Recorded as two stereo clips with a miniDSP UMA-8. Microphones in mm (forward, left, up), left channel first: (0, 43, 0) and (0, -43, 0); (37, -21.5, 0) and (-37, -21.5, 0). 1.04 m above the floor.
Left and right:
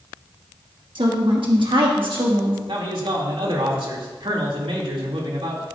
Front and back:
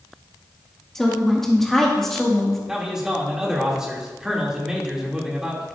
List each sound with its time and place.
0.9 s a woman speaking: 85° right, 1.8 m
2.7 s a man speaking: 100° right, 2.5 m